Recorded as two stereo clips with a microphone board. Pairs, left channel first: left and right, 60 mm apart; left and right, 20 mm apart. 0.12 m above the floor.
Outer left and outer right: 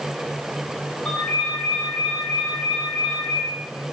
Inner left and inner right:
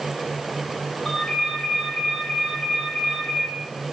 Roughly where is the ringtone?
Left.